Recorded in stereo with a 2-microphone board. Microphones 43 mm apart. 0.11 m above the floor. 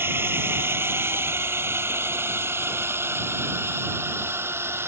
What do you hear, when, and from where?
0.0 s a drone: 60° right (ahead or behind); by 4.9 s 70° right (ahead or behind)